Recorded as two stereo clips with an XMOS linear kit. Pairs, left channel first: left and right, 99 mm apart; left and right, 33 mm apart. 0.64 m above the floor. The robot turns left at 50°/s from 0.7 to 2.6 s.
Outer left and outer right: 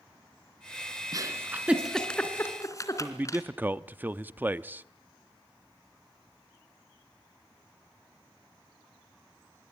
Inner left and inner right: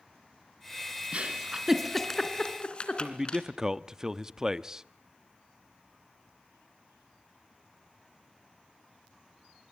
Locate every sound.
1.1 s a giggle: 40° right (ahead or behind), 2.5 m; by 3.4 s 30° left (ahead or behind), 2.5 m
3.0 s a man speaking: 20° right (ahead or behind), 0.8 m